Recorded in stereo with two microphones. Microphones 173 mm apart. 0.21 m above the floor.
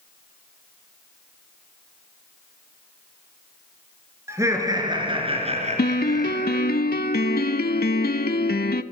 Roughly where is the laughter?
Centre.